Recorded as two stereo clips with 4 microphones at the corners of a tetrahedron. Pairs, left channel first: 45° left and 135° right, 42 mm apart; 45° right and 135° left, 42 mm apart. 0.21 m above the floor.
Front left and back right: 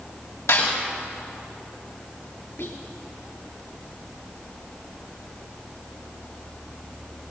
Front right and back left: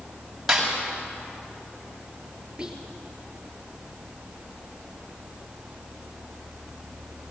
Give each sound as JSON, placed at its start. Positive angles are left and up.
{"t": 0.5, "sound": "a snare drum", "azimuth_deg": 50, "distance_m": 7.5}
{"t": 2.6, "sound": "whispering", "azimuth_deg": 60, "distance_m": 3.0}